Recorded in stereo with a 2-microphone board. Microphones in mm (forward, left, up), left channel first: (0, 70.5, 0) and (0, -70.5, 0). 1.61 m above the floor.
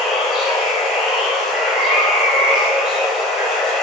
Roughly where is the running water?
Centre.